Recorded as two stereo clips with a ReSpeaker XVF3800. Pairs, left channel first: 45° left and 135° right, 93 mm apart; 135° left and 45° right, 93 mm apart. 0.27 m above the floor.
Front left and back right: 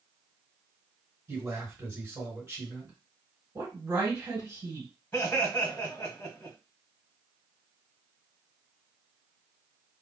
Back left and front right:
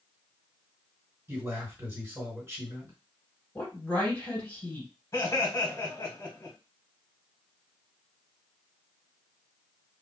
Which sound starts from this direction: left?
Laughter, at 5.1 s.